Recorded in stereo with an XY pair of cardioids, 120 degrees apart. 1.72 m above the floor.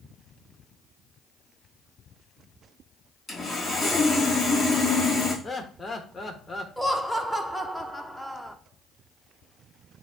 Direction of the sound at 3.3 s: 15° left.